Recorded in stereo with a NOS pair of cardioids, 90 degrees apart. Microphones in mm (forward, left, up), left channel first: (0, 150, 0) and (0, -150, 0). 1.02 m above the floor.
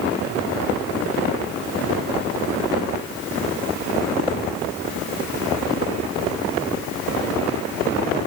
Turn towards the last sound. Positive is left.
No sound to turn to.